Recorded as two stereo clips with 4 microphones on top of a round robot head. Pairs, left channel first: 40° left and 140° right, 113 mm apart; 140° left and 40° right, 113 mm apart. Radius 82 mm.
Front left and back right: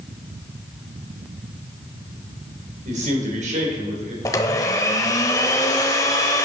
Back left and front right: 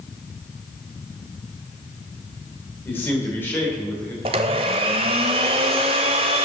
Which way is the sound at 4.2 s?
15° right.